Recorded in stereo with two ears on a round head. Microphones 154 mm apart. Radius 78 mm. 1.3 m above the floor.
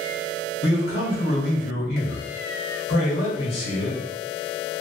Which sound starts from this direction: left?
A man speaking, at 0.6 s.